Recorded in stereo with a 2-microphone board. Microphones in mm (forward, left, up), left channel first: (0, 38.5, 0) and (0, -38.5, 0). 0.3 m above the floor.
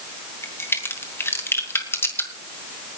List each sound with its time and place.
0.4 s a crack: 30° left (ahead or behind), 2.5 m